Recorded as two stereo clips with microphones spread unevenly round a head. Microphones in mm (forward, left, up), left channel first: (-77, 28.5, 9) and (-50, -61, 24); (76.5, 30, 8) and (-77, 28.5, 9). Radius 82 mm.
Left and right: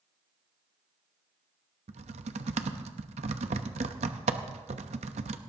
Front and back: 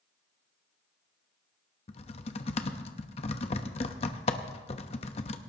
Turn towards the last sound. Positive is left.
turn(degrees=-55)